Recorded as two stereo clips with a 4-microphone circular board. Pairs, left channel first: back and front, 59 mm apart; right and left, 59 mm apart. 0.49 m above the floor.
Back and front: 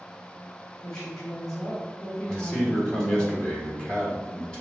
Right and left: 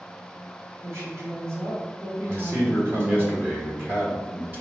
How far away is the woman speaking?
About 1.2 m.